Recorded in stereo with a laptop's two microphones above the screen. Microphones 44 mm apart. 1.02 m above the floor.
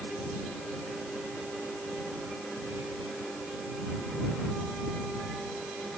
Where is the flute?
I don't hear a flute.